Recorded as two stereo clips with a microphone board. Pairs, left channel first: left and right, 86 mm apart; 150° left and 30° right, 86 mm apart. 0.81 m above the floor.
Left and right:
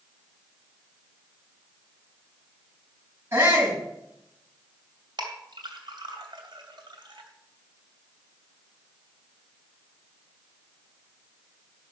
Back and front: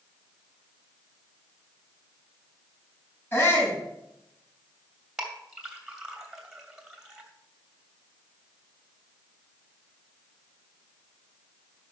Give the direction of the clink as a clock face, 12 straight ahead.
4 o'clock.